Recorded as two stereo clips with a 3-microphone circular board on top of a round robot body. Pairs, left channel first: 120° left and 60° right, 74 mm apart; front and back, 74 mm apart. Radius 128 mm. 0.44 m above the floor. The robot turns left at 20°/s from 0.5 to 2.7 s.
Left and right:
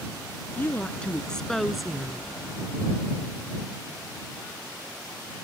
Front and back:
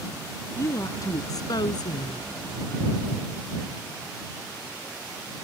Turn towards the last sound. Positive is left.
turn(degrees=10)